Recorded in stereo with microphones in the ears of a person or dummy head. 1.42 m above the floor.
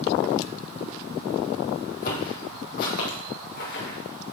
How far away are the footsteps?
About 2.5 m.